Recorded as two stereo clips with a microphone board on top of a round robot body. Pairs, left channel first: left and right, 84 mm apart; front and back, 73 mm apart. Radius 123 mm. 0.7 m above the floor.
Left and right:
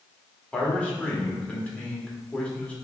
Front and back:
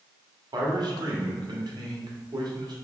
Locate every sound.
0.5 s a man speaking: 165° left, 1.4 m